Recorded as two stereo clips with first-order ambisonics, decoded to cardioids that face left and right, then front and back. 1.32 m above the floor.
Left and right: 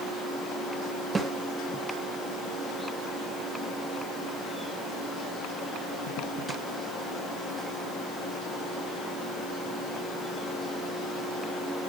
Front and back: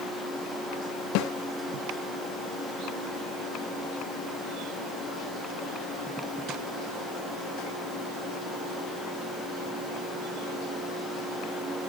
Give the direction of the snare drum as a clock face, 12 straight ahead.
1 o'clock.